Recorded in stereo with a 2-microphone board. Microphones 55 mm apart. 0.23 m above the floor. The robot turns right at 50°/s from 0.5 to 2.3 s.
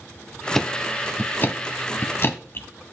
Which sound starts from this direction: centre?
Ticking, at 0.6 s.